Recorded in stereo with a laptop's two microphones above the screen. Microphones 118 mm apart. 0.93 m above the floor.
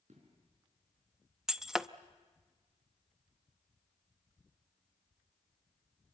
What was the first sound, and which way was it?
An explosion, 70° right (ahead or behind).